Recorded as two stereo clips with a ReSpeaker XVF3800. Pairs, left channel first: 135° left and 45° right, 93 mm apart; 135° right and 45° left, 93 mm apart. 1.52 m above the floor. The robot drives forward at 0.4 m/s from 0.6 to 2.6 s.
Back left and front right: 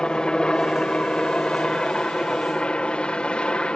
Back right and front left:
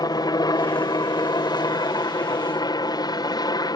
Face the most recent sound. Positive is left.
turn(degrees=-150)